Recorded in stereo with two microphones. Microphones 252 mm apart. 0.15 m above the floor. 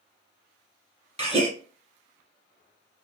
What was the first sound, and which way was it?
A gasp, 25° right (ahead or behind).